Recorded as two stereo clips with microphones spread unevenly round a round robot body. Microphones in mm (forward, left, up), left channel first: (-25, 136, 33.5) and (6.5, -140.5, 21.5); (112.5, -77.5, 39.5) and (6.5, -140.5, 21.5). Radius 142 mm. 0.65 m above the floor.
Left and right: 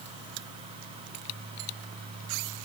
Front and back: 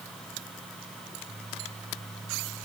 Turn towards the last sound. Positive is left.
No sound to turn to.